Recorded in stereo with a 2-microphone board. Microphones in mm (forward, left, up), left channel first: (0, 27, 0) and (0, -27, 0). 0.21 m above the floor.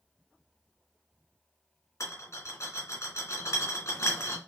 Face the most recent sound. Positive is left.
turn(degrees=60)  # may be behind; listen again after turning